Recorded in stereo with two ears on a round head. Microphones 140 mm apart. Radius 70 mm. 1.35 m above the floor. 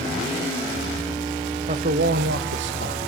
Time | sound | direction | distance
1.7 | a man speaking | 45° right (ahead or behind) | 1.2 m